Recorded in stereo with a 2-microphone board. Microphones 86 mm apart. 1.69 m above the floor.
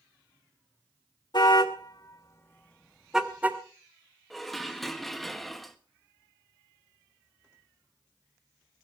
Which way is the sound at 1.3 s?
60° left (ahead or behind).